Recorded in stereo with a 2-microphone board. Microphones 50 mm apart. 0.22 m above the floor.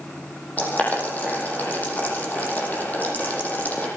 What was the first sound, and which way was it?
Boiling, 35° left (ahead or behind).